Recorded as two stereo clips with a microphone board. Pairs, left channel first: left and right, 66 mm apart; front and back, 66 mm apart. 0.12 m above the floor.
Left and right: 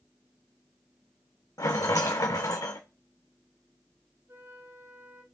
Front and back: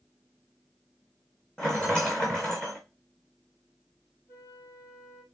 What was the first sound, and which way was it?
A rattle, 80° left.